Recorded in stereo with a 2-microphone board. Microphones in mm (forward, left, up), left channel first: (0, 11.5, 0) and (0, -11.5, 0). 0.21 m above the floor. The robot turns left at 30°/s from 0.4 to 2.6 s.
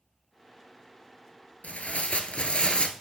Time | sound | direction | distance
1.6 | tearing paper | 80° left | 0.8 m